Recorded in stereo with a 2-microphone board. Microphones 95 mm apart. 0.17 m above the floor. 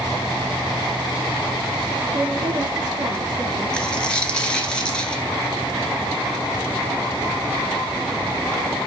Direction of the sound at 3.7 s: 10° left (ahead or behind).